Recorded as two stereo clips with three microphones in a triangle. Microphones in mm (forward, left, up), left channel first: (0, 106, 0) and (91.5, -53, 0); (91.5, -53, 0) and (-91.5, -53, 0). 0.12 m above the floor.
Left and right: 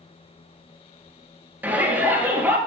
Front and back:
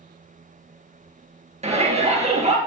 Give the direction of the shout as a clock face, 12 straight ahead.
5 o'clock.